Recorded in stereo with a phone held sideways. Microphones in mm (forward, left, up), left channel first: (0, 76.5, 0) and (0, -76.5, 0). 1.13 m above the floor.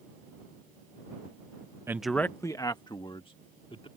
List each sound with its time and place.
1.9 s a man speaking: 20° right (ahead or behind); by 3.9 s 40° left (ahead or behind)